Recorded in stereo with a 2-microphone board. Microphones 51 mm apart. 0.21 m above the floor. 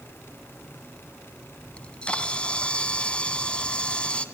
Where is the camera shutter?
20° left (ahead or behind), 1.7 m.